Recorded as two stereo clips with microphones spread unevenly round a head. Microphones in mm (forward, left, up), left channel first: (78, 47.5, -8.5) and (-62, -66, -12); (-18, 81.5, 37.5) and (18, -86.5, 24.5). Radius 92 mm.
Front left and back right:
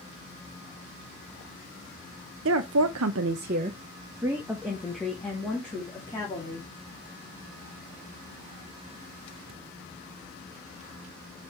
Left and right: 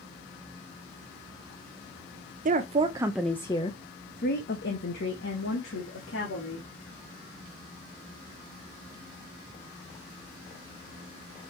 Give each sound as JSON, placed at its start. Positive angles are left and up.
{"t": 2.5, "sound": "a woman speaking", "azimuth_deg": -125, "distance_m": 0.8}